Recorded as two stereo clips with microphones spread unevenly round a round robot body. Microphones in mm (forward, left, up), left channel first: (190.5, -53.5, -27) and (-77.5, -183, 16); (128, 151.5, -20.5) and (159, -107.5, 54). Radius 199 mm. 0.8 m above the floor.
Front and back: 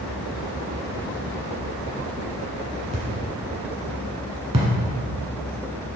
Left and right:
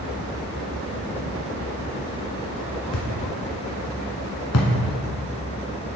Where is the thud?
145° left, 1.0 m.